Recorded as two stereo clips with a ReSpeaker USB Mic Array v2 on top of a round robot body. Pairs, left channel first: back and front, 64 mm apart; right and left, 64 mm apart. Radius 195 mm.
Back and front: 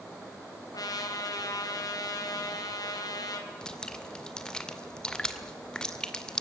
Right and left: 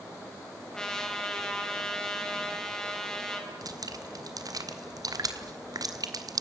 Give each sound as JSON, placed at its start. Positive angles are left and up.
{"t": 0.7, "sound": "a trumpet", "azimuth_deg": -170, "distance_m": 4.0}
{"t": 3.6, "sound": "dripping", "azimuth_deg": 100, "distance_m": 2.0}